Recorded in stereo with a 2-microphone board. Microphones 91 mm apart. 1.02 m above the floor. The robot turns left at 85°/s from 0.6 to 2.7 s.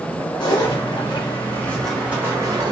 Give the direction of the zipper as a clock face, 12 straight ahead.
8 o'clock.